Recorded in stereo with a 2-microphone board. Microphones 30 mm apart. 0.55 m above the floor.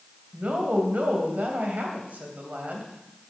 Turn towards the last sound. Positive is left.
turn(degrees=-65)  # may be behind; listen again after turning